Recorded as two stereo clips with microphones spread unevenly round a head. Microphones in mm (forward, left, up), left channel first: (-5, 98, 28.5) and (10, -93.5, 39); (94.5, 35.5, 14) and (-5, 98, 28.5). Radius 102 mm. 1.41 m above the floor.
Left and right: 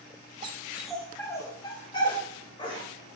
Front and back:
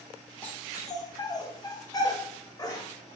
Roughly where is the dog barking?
Behind right.